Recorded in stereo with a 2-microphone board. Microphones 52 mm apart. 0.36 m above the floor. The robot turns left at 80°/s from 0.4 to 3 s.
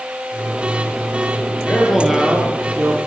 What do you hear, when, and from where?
1.7 s a man speaking: 30° left, 7.5 m; by 3.1 s 80° right, 7.5 m